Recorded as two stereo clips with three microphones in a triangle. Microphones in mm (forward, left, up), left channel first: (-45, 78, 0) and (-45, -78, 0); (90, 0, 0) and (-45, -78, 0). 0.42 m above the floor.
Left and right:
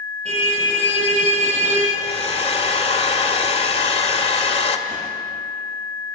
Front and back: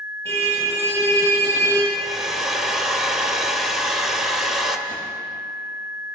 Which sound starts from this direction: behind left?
A hair dryer, at 1.9 s.